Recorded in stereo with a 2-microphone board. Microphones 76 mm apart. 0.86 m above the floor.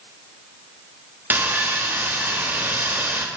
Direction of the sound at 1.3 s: 25° right (ahead or behind).